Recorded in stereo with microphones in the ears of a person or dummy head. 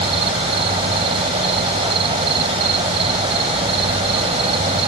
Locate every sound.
0.0 s an insect: 30° right (ahead or behind)